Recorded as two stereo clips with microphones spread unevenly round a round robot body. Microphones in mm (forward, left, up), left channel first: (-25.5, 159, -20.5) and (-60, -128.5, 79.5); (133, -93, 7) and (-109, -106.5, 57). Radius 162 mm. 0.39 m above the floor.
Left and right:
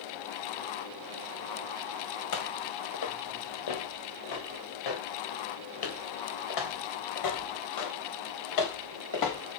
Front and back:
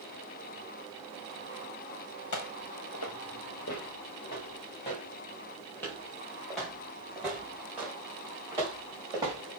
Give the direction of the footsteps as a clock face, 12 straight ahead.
11 o'clock.